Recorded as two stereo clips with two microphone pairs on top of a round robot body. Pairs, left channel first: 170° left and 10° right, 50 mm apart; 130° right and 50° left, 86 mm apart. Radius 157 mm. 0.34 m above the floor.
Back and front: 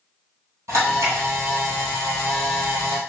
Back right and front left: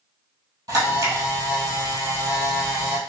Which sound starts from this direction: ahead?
A camera shutter, at 0.7 s.